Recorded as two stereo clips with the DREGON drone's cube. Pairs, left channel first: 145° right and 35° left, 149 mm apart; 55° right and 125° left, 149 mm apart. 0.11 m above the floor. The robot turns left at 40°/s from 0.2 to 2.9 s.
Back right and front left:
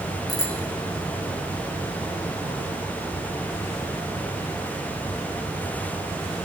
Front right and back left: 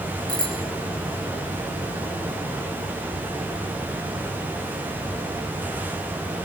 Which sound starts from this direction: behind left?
A bicycle bell, at 0.3 s.